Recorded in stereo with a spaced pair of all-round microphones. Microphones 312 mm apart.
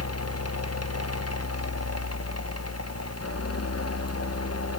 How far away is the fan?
About 0.9 m.